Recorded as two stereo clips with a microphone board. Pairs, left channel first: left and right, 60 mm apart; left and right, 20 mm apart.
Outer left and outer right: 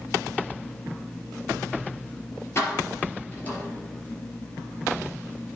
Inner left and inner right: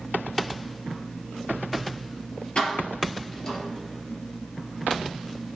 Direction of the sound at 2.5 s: 45° left (ahead or behind).